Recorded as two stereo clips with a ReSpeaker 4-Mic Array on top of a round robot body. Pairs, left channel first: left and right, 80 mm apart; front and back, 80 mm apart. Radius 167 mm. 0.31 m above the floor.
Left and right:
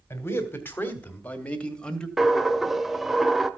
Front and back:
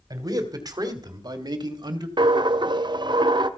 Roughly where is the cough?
I don't hear a cough.